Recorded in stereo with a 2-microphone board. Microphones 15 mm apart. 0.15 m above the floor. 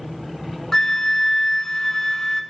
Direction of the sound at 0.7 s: 40° left (ahead or behind).